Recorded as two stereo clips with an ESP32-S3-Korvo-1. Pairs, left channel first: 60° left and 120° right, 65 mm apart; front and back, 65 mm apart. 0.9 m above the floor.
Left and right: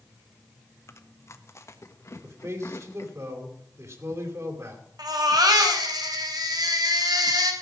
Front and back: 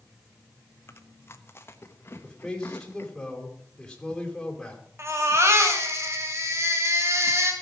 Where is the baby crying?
135° right, 2.5 m.